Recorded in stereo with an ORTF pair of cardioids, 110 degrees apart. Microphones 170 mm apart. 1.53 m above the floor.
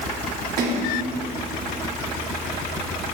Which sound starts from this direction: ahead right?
A splash, at 0.6 s.